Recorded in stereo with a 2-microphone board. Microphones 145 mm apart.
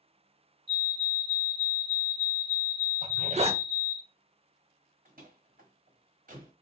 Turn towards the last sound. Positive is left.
turn(degrees=-75)  # may be behind; listen again after turning